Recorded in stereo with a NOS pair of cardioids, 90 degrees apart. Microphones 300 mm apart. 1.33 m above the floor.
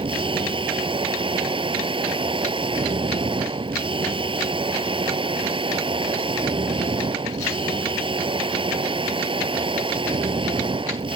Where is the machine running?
20° right.